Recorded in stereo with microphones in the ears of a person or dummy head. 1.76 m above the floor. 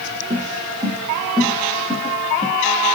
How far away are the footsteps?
About 3 m.